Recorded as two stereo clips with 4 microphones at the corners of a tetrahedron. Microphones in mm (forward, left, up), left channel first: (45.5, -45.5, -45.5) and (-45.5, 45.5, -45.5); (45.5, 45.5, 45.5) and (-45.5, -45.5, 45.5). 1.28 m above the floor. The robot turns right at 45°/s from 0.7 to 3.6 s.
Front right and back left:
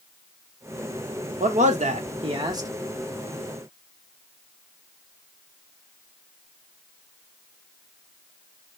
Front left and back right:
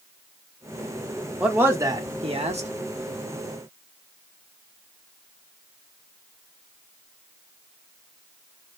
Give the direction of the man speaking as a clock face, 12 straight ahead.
7 o'clock.